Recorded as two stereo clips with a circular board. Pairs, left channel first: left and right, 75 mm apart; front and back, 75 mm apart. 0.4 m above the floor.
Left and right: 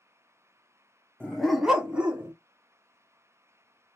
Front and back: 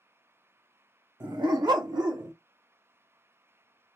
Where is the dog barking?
160° left, 0.7 m; by 2.3 s 160° right, 1.5 m.